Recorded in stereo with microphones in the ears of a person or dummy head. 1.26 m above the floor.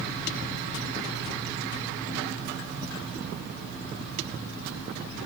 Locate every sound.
Only background noise.